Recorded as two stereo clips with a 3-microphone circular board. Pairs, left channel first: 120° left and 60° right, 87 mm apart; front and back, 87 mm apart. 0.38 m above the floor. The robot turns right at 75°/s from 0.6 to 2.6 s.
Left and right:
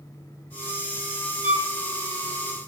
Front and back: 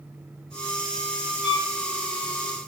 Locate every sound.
1.4 s a violin: 60° right, 1.6 m; by 1.6 s 45° right, 1.6 m